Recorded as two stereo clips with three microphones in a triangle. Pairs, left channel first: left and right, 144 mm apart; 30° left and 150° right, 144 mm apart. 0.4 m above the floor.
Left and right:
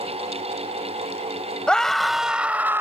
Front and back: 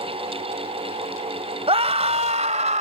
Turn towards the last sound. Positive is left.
turn(degrees=-160)